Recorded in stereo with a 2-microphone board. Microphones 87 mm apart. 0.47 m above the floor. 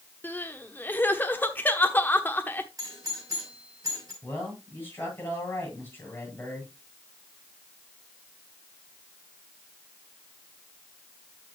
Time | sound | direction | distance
0.2 | crying | 20° left (ahead or behind) | 1.0 m
2.8 | a doorbell | 40° right (ahead or behind) | 5.5 m
4.2 | a man speaking | 25° left (ahead or behind) | 8 m